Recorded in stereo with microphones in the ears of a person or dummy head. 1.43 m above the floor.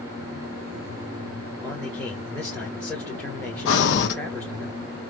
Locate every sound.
1.6 s a man speaking: 5° left (ahead or behind), 1.4 m
3.6 s breathing: 65° left (ahead or behind), 1.3 m